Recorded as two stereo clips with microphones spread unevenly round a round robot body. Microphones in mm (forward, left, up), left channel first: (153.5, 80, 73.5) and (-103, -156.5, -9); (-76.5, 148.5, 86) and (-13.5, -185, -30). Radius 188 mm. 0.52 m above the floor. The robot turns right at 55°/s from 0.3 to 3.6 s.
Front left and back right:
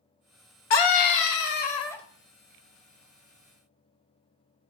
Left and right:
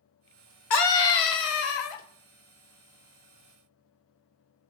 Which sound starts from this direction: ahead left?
A scream, at 0.7 s.